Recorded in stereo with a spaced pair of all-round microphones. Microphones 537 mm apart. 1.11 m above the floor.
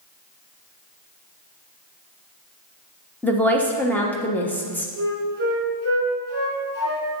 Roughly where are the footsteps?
I don't hear footsteps.